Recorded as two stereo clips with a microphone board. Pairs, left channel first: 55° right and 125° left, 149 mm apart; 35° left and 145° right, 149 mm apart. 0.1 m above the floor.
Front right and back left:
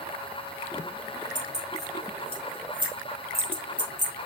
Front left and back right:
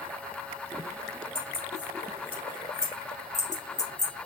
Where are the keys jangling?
160° left, 2.5 m; by 4.1 s 140° right, 1.5 m.